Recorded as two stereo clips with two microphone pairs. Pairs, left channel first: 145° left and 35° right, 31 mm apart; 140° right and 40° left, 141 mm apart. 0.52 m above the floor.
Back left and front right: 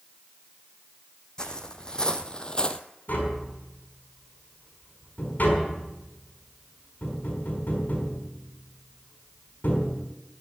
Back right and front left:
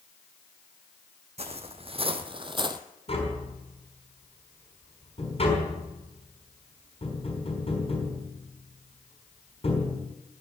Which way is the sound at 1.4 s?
80° left.